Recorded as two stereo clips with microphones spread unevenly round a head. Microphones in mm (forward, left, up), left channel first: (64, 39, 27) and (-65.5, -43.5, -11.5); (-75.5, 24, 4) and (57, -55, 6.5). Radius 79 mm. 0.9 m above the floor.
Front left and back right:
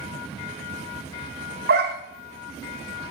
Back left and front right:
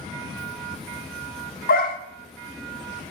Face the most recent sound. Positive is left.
turn(degrees=175)